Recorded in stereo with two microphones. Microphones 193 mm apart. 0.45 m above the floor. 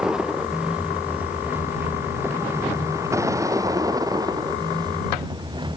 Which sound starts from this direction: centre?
A vehicle, at 0.0 s.